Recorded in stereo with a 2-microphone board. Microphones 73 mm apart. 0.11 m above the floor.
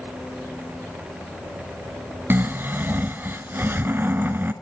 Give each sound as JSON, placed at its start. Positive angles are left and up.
{"t": 2.3, "sound": "snoring", "side_deg": -30, "distance_m": 1.4}